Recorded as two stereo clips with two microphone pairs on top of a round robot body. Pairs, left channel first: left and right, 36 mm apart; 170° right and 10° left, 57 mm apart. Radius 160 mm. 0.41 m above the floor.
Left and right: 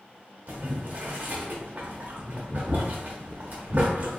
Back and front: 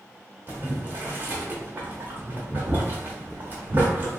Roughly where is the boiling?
Ahead right.